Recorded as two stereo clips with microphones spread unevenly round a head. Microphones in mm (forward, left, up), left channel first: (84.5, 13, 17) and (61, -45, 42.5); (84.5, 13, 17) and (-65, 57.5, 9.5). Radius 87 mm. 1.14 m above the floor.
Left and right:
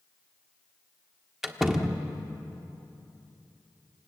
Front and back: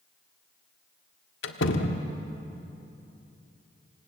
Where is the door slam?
35° right, 1.7 m.